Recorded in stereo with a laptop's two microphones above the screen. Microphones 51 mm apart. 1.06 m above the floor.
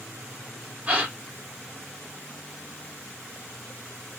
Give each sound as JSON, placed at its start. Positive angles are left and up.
{"t": 0.9, "sound": "a gasp", "side_deg": -25, "distance_m": 0.8}